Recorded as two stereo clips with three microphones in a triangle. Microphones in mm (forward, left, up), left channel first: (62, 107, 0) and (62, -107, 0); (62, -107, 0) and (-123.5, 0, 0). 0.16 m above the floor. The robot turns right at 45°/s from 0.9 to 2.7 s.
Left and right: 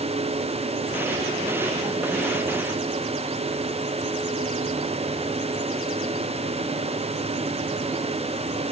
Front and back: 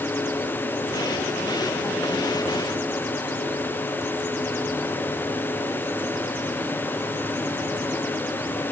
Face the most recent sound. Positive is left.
No sound to turn to.